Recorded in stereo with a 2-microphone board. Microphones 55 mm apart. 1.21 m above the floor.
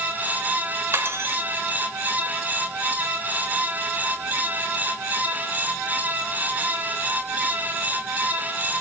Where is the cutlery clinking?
50° right (ahead or behind), 2.5 m.